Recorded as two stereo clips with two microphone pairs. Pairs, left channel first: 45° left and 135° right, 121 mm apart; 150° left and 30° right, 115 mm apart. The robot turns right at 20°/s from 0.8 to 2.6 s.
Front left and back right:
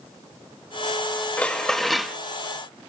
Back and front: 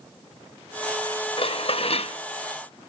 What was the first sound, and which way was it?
Dishes clattering, 125° left.